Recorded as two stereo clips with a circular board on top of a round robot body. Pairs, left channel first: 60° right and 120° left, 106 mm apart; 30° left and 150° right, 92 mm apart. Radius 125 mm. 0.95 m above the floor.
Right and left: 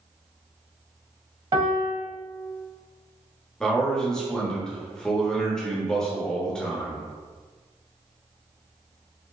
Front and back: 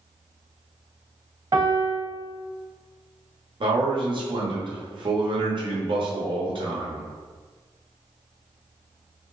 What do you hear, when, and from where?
1.5 s a piano: 165° left, 1.0 m
3.6 s a man speaking: 140° right, 1.2 m